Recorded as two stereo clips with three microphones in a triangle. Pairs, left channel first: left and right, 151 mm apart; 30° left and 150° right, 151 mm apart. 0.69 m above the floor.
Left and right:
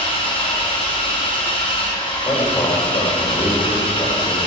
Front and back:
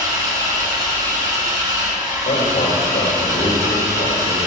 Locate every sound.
0.0 s an engine running: 145° left, 3 m
2.2 s a man speaking: 30° left, 2.5 m